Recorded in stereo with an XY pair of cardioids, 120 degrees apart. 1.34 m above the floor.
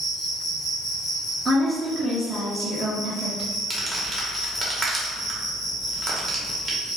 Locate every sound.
0.0 s an insect: 60° left, 1.2 m
1.4 s a woman speaking: 20° right, 0.6 m
3.7 s crumpling: 25° right, 0.8 m